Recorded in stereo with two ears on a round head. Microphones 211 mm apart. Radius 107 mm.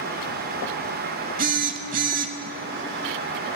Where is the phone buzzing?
35° right (ahead or behind), 0.7 m.